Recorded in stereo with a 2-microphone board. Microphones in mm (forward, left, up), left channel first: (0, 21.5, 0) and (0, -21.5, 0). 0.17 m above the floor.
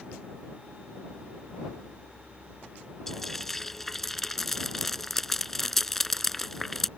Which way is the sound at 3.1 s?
5° left (ahead or behind).